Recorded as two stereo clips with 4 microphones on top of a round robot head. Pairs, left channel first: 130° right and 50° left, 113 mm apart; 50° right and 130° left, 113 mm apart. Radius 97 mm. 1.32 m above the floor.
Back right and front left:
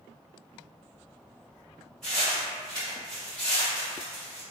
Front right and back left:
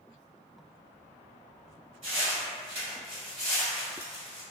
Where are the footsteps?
140° left, 1.4 m; by 4.4 s 110° right, 1.5 m.